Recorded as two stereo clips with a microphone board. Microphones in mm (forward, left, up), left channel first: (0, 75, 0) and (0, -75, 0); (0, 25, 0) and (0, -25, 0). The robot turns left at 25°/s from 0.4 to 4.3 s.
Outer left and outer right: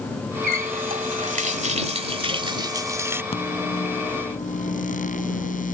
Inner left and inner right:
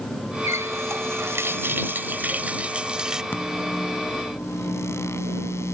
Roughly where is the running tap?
Right.